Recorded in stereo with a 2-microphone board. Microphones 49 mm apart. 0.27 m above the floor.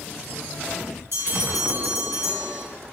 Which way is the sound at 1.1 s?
65° right (ahead or behind).